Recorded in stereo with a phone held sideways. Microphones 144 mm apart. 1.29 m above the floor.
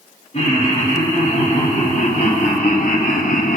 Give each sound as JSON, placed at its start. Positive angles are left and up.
{"t": 0.3, "sound": "laughter", "side_deg": 45, "distance_m": 2.0}